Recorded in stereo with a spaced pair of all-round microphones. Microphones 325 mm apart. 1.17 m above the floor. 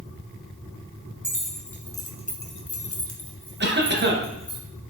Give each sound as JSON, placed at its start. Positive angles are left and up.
{"t": 1.2, "sound": "keys jangling", "side_deg": -5, "distance_m": 1.3}
{"t": 3.6, "sound": "a cough", "side_deg": -35, "distance_m": 0.8}